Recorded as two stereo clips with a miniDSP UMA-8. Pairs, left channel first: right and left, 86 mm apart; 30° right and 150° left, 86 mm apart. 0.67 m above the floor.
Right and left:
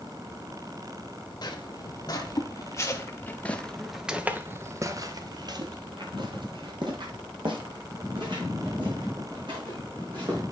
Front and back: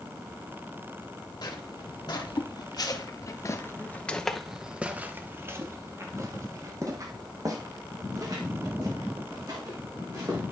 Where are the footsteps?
55° right, 1.6 m; by 10.4 s 110° left, 3.5 m.